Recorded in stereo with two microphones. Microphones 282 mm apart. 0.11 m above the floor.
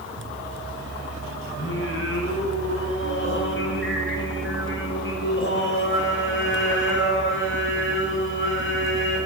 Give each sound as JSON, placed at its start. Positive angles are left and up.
{"t": 1.6, "sound": "singing", "side_deg": 45, "distance_m": 9.5}